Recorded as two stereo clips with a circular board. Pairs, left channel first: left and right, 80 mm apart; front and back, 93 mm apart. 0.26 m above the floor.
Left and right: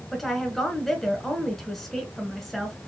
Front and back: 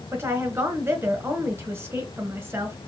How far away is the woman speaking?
About 1.4 m.